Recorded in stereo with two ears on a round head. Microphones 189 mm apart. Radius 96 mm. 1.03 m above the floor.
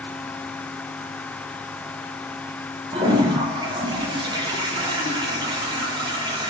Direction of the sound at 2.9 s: 20° right (ahead or behind).